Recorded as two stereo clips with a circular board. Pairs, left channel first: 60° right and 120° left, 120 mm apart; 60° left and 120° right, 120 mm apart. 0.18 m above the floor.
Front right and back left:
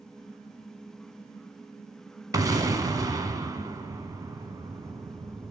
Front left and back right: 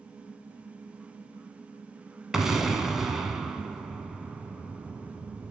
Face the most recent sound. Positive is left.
turn(degrees=155)